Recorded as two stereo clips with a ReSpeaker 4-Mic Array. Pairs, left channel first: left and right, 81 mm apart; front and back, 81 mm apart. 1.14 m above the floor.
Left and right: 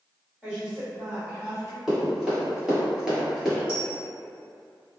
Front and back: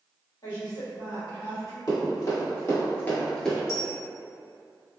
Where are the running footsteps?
10° right, 1.9 m; by 3.6 s 75° right, 1.1 m.